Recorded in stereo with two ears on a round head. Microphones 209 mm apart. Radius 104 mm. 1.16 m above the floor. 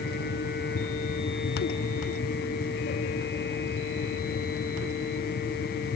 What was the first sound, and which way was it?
Only background noise.